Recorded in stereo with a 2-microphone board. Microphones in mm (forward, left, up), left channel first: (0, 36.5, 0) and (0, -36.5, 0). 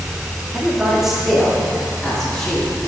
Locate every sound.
0.5 s a man speaking: 10° right (ahead or behind), 2 m; by 2.7 s 10° left (ahead or behind), 3 m